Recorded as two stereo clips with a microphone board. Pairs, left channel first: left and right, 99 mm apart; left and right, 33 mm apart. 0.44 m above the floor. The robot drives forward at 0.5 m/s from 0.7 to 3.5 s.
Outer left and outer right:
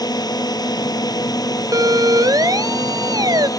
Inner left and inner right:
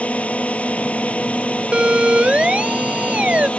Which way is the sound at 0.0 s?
40° left (ahead or behind).